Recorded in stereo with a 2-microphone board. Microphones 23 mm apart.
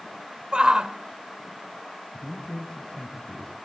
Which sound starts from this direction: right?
A shout, at 0.5 s.